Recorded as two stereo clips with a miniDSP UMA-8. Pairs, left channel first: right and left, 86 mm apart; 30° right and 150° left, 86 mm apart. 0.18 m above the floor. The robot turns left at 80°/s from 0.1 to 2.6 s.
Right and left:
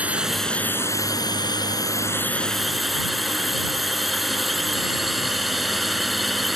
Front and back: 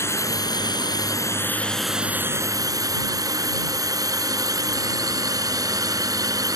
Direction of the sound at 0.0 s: 20° left.